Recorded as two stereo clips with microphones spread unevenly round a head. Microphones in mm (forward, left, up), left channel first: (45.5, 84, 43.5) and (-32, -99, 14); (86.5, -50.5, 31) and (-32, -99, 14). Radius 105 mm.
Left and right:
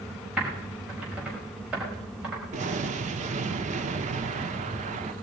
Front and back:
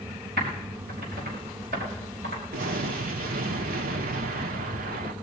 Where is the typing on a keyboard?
160° left, 5.5 m.